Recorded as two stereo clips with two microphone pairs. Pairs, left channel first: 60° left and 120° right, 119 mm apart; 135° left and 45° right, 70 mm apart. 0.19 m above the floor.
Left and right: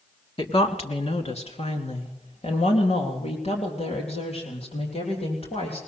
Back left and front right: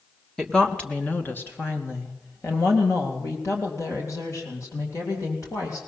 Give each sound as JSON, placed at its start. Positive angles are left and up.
{"t": 0.4, "sound": "a woman speaking", "azimuth_deg": 50, "distance_m": 1.5}